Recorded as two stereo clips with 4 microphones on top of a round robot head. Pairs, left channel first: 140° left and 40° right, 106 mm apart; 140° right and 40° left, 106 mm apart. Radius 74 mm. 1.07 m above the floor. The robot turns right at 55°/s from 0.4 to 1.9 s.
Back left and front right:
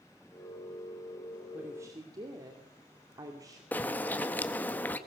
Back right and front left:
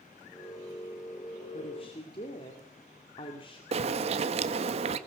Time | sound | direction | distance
1.5 | a woman speaking | 120° right | 2.5 m
3.7 | a bird | 65° left | 1.4 m